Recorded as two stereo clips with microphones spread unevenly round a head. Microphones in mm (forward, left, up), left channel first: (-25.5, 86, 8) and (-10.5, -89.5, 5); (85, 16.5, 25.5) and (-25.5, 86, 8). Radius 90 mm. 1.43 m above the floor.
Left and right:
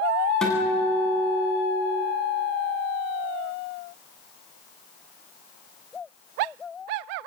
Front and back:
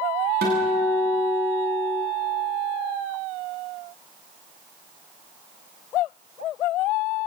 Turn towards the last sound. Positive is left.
turn(degrees=180)